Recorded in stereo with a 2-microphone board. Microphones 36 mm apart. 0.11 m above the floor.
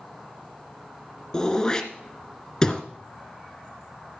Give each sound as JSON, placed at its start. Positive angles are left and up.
{"t": 1.3, "sound": "throat clearing", "side_deg": 20, "distance_m": 1.4}